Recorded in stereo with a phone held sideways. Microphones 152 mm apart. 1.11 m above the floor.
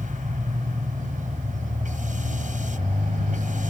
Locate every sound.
0.0 s a machine running: 60° right (ahead or behind)